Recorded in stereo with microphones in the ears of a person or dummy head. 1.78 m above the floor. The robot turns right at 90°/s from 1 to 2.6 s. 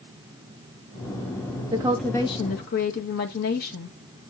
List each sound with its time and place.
1.7 s a woman speaking: 25° right, 2.0 m; by 3.9 s 55° left, 2.0 m